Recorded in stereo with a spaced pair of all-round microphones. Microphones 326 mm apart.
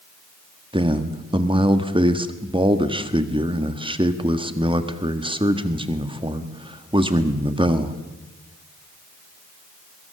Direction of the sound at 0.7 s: 15° right (ahead or behind).